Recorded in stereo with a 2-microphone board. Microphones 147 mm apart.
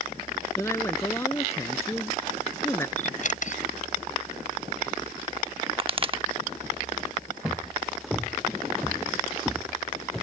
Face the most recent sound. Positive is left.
turn(degrees=0)  # may be behind; listen again after turning